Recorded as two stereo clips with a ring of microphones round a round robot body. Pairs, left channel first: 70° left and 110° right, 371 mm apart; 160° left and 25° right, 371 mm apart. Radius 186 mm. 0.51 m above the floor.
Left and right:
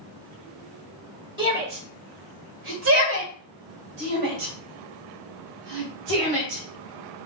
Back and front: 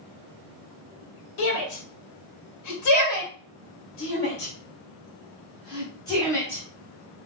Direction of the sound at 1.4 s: 170° left.